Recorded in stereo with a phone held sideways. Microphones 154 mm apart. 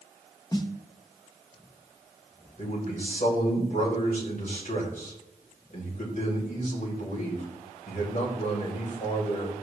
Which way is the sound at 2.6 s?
65° left (ahead or behind).